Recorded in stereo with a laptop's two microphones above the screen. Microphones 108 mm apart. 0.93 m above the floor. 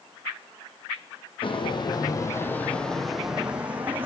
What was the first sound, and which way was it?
Footsteps, 55° left (ahead or behind).